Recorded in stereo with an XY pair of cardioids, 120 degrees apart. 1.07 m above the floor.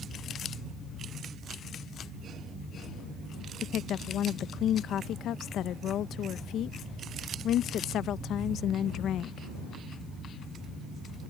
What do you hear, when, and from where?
3.6 s a woman speaking: 65° left